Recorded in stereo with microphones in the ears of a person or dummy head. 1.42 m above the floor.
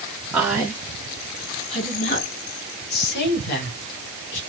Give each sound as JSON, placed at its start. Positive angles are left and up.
{"t": 0.3, "sound": "a woman speaking", "side_deg": -5, "distance_m": 1.6}